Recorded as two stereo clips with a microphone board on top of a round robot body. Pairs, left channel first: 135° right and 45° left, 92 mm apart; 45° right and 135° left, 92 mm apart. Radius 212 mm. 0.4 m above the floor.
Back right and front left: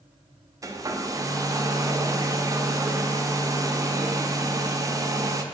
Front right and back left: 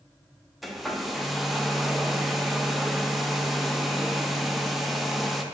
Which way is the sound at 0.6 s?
45° left.